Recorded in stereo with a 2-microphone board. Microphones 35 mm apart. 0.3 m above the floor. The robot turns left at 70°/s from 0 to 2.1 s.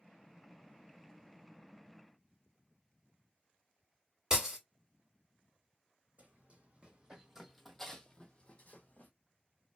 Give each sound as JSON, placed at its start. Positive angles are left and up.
{"t": 4.3, "sound": "breaking glass", "side_deg": -15, "distance_m": 1.3}
{"t": 6.2, "sound": "running footsteps", "side_deg": -45, "distance_m": 1.1}